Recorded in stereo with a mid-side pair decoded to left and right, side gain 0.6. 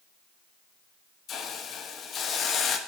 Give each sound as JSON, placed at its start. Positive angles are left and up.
{"t": 1.3, "sound": "a hiss", "azimuth_deg": 50, "distance_m": 1.3}